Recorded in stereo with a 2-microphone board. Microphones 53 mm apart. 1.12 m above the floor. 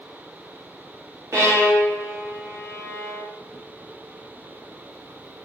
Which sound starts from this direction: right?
A violin, at 1.3 s.